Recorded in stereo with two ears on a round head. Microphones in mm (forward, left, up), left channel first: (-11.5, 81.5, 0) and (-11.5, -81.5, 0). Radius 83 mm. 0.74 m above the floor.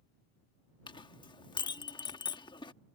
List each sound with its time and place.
0.9 s a clink: 25° left (ahead or behind)